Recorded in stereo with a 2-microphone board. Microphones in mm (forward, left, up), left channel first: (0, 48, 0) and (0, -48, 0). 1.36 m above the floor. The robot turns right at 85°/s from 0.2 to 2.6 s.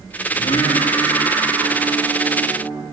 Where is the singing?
95° left, 2.5 m; by 2.8 s 70° right, 2.5 m.